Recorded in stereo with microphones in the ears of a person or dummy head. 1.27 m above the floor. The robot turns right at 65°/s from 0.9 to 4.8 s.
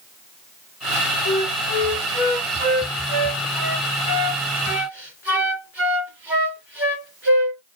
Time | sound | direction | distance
1.2 | a flute | 50° left (ahead or behind) | 2.5 m